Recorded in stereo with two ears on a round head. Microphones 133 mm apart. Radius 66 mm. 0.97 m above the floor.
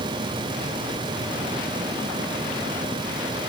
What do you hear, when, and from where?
Only background noise.